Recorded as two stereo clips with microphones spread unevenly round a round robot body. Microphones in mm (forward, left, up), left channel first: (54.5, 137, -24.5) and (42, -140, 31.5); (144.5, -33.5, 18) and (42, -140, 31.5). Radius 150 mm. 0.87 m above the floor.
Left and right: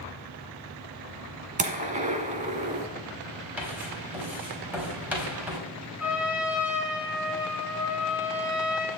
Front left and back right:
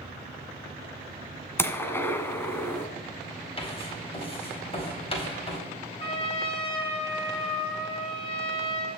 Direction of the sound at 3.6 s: 5° right.